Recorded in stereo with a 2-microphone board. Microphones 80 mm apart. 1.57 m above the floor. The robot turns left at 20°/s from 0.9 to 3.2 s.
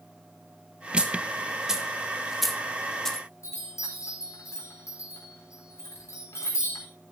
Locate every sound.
1.0 s a dropped coin: 15° right (ahead or behind), 1.2 m; by 3.3 s 5° left (ahead or behind), 1.2 m
3.4 s a chime: 40° left (ahead or behind), 4 m